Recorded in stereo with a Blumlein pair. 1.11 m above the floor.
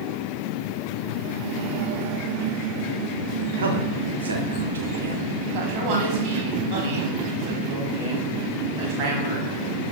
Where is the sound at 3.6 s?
70° right, 1.0 m.